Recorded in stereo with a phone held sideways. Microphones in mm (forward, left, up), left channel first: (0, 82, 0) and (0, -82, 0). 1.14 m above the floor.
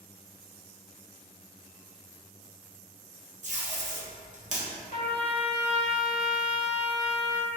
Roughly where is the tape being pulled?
Right.